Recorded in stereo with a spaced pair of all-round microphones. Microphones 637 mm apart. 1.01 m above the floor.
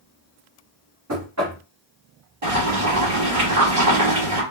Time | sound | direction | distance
1.1 | knocking | 25° right (ahead or behind) | 1.5 m
2.4 | boiling | 55° right (ahead or behind) | 1.9 m